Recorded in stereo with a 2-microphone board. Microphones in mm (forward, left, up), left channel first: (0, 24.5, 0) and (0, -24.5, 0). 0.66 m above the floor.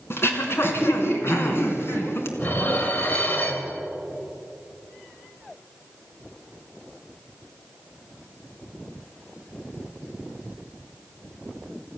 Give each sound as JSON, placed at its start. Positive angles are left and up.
{"t": 0.1, "sound": "throat clearing", "side_deg": 50, "distance_m": 2.5}
{"t": 2.4, "sound": "dishes clattering", "side_deg": 40, "distance_m": 1.9}